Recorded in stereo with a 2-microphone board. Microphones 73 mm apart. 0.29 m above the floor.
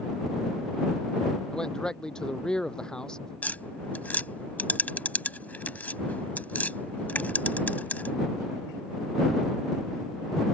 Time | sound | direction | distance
1.5 | a man speaking | 10° left (ahead or behind) | ?
3.4 | tapping | 25° left (ahead or behind) | ?